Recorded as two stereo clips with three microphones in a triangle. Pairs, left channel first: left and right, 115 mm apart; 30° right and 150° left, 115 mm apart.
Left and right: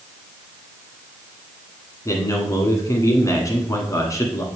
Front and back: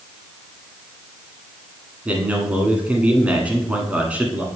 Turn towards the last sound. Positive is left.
turn(degrees=85)